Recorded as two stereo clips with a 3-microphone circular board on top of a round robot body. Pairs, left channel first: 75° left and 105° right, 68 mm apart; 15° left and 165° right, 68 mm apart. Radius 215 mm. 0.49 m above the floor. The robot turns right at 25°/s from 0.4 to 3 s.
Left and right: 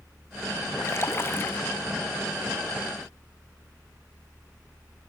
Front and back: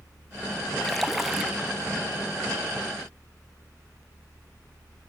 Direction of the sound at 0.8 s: 100° left.